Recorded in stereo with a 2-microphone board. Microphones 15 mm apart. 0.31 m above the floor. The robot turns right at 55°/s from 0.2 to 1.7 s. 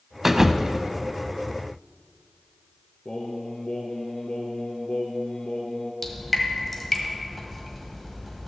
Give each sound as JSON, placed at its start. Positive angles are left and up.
{"t": 0.2, "sound": "a thud", "azimuth_deg": -165, "distance_m": 0.6}
{"t": 3.0, "sound": "singing", "side_deg": 60, "distance_m": 1.6}
{"t": 6.0, "sound": "dripping", "side_deg": 10, "distance_m": 1.4}